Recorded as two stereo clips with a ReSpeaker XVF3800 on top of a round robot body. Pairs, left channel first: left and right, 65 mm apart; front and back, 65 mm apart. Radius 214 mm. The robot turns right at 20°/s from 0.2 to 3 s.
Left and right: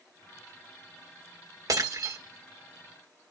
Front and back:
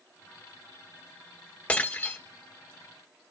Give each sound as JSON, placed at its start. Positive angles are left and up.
{"t": 1.7, "sound": "breaking glass", "azimuth_deg": -70, "distance_m": 2.5}